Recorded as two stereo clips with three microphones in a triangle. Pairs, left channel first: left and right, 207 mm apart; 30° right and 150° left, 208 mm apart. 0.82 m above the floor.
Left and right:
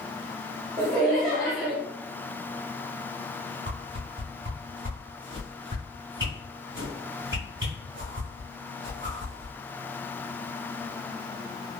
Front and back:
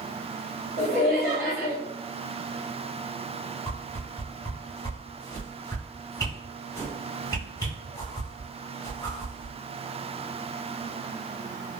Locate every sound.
0.8 s laughter: straight behind, 1.2 m
3.7 s a whoosh: 100° right, 1.9 m